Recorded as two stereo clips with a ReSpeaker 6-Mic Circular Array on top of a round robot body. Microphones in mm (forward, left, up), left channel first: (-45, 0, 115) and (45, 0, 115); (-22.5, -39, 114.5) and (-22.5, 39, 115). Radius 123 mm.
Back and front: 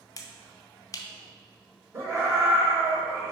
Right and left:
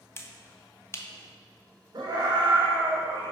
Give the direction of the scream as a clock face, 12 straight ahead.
10 o'clock.